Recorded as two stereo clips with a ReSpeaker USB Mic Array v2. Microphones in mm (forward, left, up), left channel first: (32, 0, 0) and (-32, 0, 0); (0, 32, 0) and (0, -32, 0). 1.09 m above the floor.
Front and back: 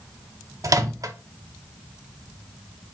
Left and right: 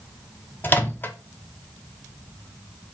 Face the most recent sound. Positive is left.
turn(degrees=150)